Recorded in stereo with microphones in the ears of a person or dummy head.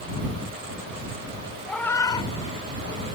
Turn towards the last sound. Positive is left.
turn(degrees=60)  # may be behind; listen again after turning